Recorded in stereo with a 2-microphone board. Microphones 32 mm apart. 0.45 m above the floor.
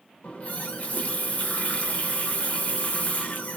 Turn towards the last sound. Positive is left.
turn(degrees=50)  # may be behind; listen again after turning